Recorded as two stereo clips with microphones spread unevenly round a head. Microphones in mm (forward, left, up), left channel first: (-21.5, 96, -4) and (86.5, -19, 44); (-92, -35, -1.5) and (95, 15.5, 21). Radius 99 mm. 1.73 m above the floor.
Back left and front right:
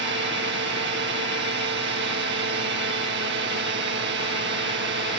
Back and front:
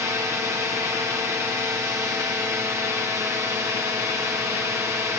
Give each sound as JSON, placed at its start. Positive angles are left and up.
{"t": 0.0, "sound": "a drone", "azimuth_deg": -65}